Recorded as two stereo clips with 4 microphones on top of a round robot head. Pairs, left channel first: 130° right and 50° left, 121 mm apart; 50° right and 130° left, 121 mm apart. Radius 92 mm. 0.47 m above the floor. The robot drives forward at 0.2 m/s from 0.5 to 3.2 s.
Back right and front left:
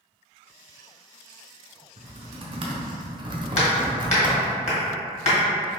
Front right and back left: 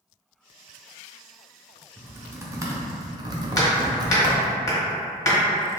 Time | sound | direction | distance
2.0 | typing on a keyboard | 60° left | 0.8 m
3.6 | hammering | 110° right | 1.5 m